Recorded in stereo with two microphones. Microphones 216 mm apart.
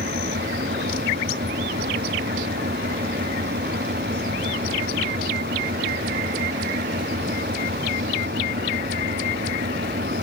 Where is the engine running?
50° right (ahead or behind).